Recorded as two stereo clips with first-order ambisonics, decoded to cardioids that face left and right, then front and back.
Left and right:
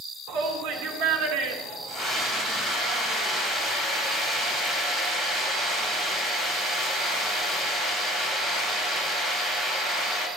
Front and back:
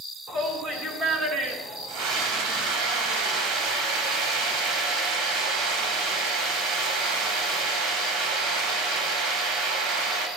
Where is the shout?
110° right, 4.5 m.